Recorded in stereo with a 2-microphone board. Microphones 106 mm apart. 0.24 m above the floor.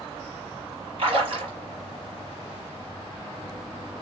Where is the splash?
55° right (ahead or behind), 1.8 m.